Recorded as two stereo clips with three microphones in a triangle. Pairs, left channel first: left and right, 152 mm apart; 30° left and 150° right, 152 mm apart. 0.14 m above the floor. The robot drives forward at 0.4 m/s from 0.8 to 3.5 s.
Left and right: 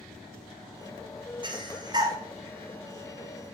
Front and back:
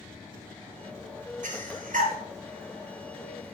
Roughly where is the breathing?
Behind right.